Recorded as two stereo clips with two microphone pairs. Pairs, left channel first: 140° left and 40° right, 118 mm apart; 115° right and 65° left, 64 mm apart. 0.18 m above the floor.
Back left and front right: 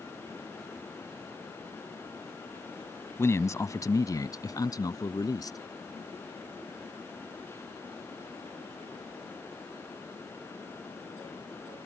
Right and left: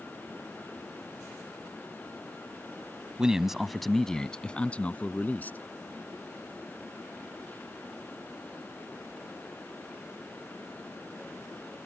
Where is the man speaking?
125° left; by 5.6 s 170° right.